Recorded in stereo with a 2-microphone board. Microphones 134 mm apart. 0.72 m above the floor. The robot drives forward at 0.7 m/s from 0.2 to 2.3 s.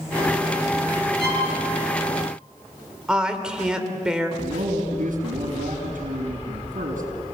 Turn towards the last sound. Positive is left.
turn(degrees=-80)